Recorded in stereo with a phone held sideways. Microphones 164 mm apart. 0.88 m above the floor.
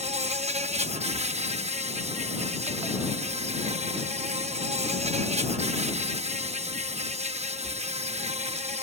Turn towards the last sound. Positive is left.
turn(degrees=-40)  # may be behind; listen again after turning